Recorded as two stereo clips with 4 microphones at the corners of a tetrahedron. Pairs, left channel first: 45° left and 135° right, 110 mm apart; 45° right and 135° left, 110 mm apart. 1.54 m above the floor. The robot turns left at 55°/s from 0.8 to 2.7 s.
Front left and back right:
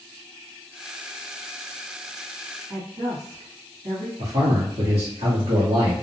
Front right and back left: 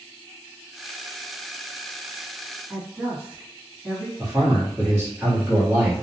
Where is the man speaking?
150° right, 1.1 m.